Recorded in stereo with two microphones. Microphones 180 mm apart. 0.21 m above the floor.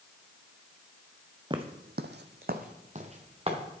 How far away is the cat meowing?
I don't hear a cat meowing.